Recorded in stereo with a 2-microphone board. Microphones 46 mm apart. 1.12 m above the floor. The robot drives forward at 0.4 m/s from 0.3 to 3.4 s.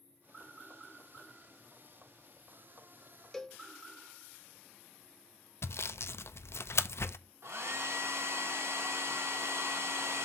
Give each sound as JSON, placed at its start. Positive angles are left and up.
{"t": 3.3, "sound": "a cowbell", "side_deg": 5, "distance_m": 0.6}
{"t": 5.6, "sound": "sawing", "side_deg": 65, "distance_m": 0.5}
{"t": 7.4, "sound": "a hair dryer", "side_deg": -65, "distance_m": 1.7}